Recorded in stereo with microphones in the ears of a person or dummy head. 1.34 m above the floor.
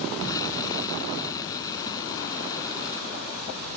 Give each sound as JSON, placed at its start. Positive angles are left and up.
{"t": 0.2, "sound": "an explosion", "side_deg": 20}